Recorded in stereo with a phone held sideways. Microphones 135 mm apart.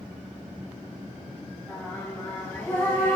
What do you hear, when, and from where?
1.7 s singing: 10° left (ahead or behind), 4.5 m